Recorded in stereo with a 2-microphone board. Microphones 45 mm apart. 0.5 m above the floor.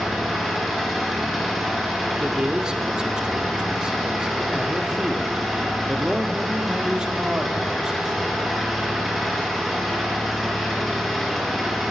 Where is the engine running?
Centre (ahead or behind), 3.5 m.